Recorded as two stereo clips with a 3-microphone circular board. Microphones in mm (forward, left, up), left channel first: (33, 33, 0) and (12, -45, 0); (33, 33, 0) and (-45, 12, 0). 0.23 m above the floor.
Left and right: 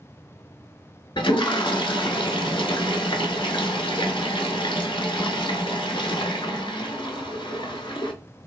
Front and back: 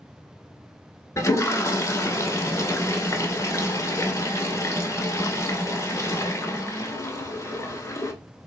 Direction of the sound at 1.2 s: 70° left.